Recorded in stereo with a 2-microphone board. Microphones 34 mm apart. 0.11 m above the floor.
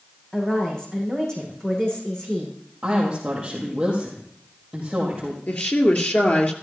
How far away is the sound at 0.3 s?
About 7 m.